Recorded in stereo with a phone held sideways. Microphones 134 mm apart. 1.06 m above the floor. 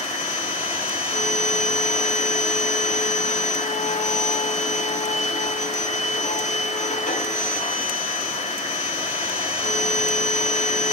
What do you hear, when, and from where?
0.0 s a machine running: 70° left (ahead or behind), 4 m